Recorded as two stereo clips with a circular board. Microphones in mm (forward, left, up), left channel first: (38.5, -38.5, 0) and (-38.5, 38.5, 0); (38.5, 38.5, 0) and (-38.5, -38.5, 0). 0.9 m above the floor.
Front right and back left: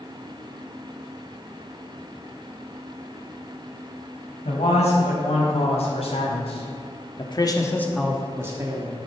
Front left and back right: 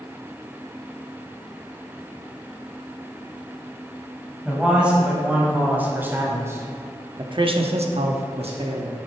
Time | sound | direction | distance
4.5 | a man speaking | 55° right | 4.5 m